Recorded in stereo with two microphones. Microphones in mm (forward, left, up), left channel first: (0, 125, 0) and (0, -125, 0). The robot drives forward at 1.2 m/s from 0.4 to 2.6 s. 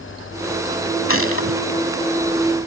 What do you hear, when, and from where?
1.1 s a gunshot: 60° left (ahead or behind); by 1.6 s 55° left (ahead or behind)